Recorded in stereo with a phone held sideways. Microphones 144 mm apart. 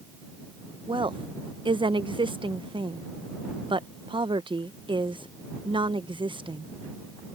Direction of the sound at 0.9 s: 35° right (ahead or behind).